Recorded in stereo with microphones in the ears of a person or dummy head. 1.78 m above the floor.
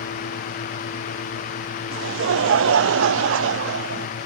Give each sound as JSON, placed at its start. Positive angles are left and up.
{"t": 1.9, "sound": "laughter", "side_deg": -80, "distance_m": 0.9}